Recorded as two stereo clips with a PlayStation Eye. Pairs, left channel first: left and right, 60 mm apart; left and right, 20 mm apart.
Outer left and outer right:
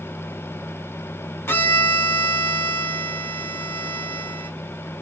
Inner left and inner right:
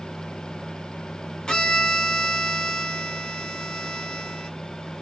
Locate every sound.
1.5 s a violin: 40° left (ahead or behind), 1.2 m